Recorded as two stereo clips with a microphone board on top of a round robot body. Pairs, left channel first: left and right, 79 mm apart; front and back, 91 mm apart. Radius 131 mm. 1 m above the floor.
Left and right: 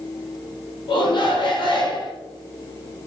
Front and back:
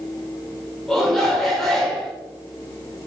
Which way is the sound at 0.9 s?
90° left.